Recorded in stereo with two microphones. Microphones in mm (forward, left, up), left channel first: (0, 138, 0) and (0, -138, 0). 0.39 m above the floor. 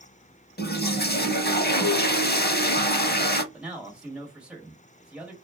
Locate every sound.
0.6 s a toilet flushing: 35° left (ahead or behind), 0.5 m
3.5 s a man speaking: 5° right (ahead or behind), 1.3 m